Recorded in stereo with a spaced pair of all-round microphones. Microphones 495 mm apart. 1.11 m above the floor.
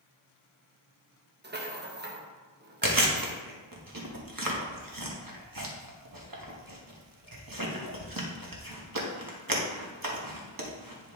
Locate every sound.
1.4 s a rattle: 20° right (ahead or behind), 1.0 m
2.8 s chewing: 40° right (ahead or behind), 1.2 m